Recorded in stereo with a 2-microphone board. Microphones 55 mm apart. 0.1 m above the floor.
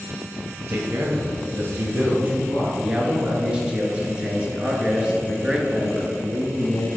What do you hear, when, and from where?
0.7 s a man speaking: 50° right (ahead or behind), 1.9 m; by 2.7 s 25° right (ahead or behind), 2.5 m
2.8 s a man speaking: 20° right (ahead or behind), 1.2 m